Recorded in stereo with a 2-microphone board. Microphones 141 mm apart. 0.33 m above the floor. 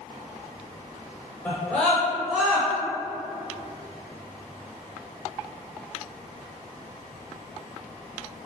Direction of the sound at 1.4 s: 10° left (ahead or behind).